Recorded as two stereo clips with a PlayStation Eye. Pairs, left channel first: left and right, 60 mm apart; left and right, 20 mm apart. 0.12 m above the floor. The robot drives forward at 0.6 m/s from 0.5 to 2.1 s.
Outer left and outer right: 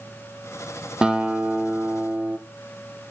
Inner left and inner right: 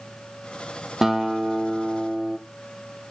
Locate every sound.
1.0 s a guitar: 15° right (ahead or behind), 1.4 m; by 2.4 s 25° right (ahead or behind), 0.8 m